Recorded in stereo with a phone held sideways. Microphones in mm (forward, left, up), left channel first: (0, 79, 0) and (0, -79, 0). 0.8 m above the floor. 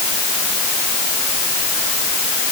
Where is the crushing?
I don't hear crushing.